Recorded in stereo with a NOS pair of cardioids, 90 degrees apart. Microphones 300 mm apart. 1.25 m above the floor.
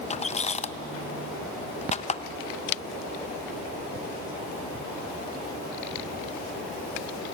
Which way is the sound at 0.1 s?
25° left.